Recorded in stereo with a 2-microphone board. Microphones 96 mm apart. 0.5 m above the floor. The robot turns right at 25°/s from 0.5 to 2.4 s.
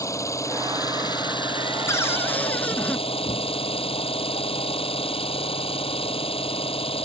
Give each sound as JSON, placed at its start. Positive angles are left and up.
{"t": 0.0, "sound": "an engine running", "azimuth_deg": 35}
{"t": 1.9, "sound": "a cupboard door", "side_deg": 30}